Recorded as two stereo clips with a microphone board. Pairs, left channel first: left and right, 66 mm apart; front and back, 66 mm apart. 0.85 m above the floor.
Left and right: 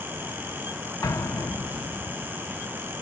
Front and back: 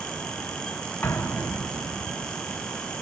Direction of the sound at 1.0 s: 60° left.